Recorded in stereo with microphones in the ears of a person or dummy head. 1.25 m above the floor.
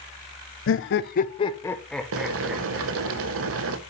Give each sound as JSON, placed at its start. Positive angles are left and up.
{"t": 0.7, "sound": "laughter", "side_deg": 60, "distance_m": 0.6}
{"t": 2.1, "sound": "boiling", "side_deg": -70, "distance_m": 1.0}